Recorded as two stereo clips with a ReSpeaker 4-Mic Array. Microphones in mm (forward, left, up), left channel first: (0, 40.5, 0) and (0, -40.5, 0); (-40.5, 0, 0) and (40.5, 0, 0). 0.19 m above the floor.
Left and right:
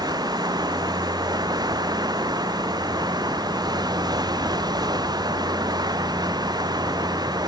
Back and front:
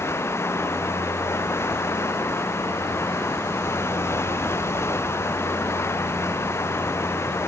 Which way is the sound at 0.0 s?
125° right.